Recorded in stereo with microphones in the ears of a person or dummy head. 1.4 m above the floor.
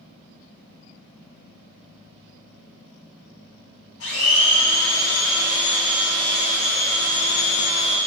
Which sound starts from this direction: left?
A blender, at 4.0 s.